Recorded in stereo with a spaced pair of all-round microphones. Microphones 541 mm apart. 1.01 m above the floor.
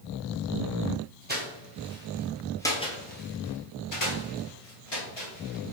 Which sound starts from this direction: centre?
Footsteps, at 1.3 s.